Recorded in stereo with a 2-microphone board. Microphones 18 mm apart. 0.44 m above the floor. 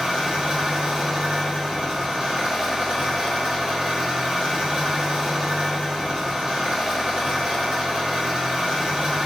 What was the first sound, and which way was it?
An engine running, 60° right (ahead or behind).